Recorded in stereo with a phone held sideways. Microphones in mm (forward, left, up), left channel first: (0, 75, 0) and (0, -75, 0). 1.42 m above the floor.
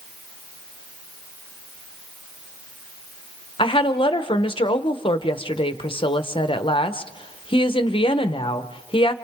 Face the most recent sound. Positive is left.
turn(degrees=35)  # may be behind; listen again after turning